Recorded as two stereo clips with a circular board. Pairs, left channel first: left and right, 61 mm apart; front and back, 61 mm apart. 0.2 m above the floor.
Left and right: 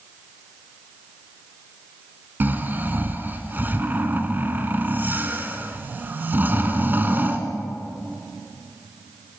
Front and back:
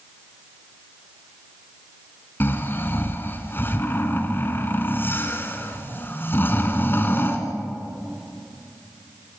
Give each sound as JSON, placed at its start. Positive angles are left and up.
{"t": 2.4, "sound": "snoring", "azimuth_deg": -40, "distance_m": 2.0}